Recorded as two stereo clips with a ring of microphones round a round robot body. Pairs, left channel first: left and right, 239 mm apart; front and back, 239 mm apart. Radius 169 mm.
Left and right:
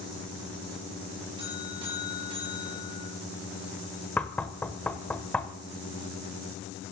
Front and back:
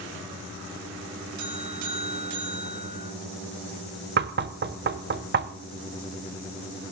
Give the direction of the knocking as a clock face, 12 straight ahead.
6 o'clock.